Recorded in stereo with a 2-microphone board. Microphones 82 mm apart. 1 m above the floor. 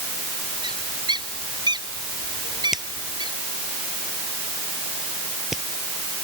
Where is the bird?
60° right (ahead or behind).